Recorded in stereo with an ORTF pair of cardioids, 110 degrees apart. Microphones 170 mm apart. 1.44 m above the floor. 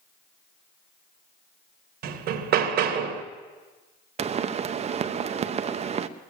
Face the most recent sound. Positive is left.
turn(degrees=-40)